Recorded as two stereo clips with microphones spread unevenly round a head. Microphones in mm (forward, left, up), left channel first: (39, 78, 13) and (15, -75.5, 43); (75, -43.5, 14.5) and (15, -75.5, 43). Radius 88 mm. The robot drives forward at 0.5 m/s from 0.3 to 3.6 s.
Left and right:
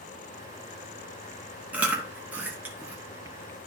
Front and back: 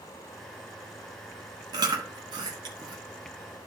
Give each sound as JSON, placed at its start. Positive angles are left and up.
{"t": 1.7, "sound": "chewing", "azimuth_deg": -175, "distance_m": 1.0}